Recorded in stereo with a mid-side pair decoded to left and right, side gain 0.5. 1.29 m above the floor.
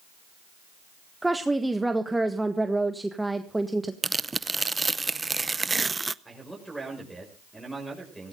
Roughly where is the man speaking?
Ahead.